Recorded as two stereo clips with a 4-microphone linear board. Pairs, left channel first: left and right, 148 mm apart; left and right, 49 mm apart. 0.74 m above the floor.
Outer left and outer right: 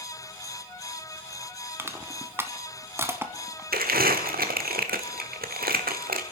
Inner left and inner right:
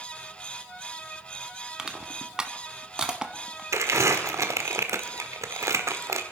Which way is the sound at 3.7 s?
85° right.